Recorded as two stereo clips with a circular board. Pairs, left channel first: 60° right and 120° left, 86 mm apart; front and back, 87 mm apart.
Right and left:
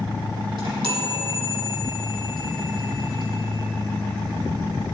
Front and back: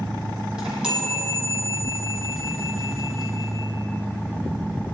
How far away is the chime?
About 4 m.